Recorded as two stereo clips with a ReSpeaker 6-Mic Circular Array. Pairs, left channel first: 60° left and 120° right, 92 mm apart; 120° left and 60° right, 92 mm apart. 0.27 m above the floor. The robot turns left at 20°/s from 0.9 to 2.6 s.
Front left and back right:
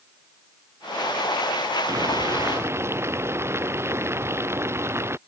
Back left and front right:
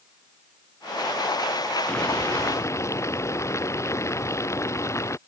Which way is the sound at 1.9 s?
165° right.